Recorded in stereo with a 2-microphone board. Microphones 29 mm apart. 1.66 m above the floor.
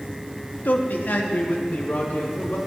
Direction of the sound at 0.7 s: 70° left (ahead or behind).